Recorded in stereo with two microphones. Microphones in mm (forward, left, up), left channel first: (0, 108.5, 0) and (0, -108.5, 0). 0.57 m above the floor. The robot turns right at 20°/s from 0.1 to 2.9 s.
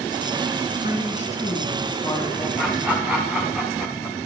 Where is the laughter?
Centre (ahead or behind), 1.4 m; by 4.2 s 5° right (ahead or behind), 1.4 m.